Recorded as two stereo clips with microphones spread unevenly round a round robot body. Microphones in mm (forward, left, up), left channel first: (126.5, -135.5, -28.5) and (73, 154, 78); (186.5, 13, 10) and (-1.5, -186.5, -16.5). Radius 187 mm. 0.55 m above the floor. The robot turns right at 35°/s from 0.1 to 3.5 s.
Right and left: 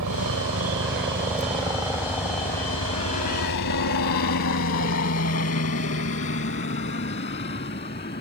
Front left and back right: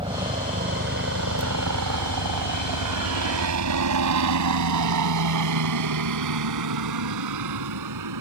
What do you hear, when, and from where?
0.0 s a helicopter: 150° left; by 8.2 s 150° right